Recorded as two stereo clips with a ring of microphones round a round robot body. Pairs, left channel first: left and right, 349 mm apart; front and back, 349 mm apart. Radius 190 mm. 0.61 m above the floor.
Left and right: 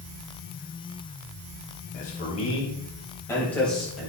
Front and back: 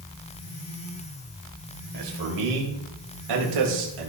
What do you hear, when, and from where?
1.9 s a man speaking: 160° left, 3 m; by 4.1 s straight behind, 3.5 m